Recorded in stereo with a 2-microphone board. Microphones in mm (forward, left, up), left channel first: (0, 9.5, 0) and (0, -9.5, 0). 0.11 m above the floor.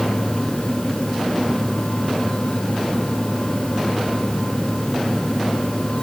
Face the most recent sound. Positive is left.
No sound to turn to.